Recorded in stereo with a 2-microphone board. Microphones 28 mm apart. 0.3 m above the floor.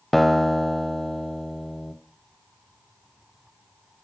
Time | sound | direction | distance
0.1 | a guitar | 10° left (ahead or behind) | 0.7 m